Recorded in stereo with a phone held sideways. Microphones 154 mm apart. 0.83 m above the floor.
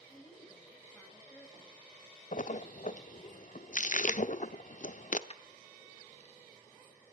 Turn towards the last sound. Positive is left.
turn(degrees=45)  # may be behind; listen again after turning